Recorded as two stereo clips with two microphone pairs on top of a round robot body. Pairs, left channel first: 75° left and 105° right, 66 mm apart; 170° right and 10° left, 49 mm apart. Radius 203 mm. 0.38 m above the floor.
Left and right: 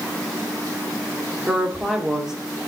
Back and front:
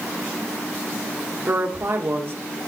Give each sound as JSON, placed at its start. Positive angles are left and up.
{"t": 1.5, "sound": "a woman speaking", "azimuth_deg": -25, "distance_m": 2.0}